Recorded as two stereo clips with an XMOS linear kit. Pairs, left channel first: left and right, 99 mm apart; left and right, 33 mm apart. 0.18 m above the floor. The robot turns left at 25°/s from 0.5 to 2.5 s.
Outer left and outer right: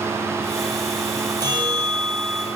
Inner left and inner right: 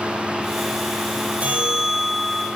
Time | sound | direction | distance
1.4 | a bell | 45° right (ahead or behind) | 1.6 m